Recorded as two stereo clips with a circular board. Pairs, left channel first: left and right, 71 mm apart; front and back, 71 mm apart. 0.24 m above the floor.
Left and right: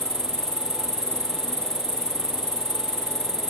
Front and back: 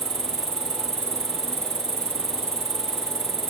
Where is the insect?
165° left.